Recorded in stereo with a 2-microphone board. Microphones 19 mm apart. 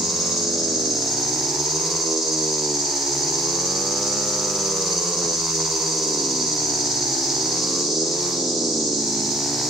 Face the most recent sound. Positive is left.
turn(degrees=-25)  # may be behind; listen again after turning